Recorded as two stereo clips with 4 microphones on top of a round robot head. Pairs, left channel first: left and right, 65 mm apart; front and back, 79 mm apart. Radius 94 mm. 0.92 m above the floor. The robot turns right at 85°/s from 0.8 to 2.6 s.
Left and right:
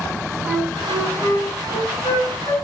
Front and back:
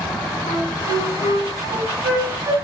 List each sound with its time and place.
0.5 s a flute: 25° right, 9.5 m; by 2.5 s 125° left, 9.5 m